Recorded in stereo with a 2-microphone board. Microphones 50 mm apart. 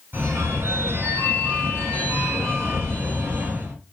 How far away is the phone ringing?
About 1.1 m.